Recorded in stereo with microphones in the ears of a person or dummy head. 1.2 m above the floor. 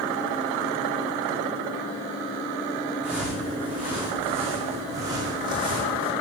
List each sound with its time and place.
3.0 s footsteps: centre (ahead or behind), 3.5 m; by 6.1 s 35° right (ahead or behind), 2.5 m